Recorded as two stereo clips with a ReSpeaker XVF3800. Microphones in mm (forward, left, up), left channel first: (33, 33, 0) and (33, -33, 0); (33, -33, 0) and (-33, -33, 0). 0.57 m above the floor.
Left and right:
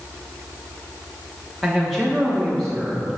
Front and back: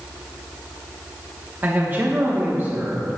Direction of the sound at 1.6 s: Straight behind.